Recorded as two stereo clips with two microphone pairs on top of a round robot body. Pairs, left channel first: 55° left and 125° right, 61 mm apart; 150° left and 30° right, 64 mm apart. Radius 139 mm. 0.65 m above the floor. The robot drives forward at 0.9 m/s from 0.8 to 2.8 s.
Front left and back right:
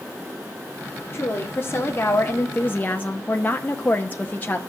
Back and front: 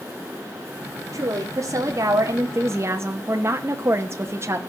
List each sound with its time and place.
1.1 s a woman speaking: straight ahead, 2.5 m